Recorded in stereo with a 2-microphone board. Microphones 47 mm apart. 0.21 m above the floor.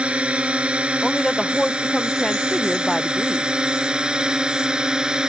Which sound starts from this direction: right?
A drone, at 0.0 s.